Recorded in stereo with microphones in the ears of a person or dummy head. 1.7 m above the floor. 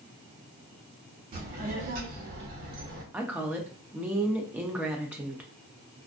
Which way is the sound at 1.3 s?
40° right (ahead or behind).